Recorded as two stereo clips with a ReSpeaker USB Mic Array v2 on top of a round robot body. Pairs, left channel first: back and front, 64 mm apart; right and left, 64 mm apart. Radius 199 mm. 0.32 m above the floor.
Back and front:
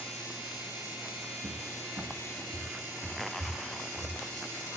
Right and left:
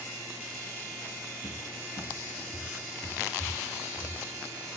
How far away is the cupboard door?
About 3.5 m.